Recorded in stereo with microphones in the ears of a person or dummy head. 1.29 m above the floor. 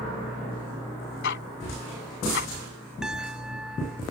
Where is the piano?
5° right (ahead or behind).